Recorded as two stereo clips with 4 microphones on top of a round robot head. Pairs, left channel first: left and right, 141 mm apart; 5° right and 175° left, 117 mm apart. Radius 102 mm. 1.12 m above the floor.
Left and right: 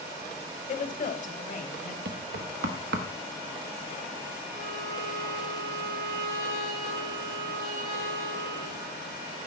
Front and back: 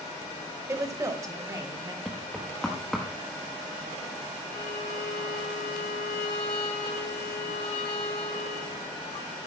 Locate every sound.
0.7 s a woman speaking: 110° left, 1.4 m; by 1.9 s 115° left, 2.5 m
2.0 s knocking: 95° right, 1.0 m
4.5 s a violin: 50° right, 2 m